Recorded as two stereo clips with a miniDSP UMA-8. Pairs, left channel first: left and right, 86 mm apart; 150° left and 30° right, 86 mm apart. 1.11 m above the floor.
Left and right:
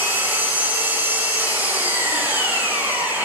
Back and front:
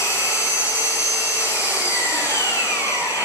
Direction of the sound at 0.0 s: 155° right.